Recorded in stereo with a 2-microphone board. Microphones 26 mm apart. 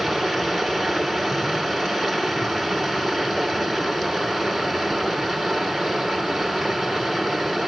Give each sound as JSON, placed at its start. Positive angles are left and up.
{"t": 0.0, "sound": "running water", "side_deg": 5, "distance_m": 1.8}